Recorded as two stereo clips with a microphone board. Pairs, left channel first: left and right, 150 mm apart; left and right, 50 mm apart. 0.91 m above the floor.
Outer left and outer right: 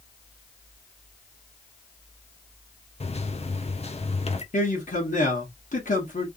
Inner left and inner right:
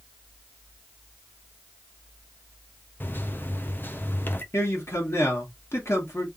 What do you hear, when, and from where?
3.0 s a microwave: 40° left (ahead or behind), 0.8 m
4.5 s a man speaking: 60° left (ahead or behind), 2.0 m